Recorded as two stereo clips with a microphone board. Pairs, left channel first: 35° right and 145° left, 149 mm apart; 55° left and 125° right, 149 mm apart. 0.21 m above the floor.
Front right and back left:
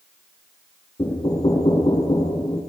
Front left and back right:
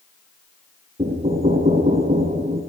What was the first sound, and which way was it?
Knocking, 85° right.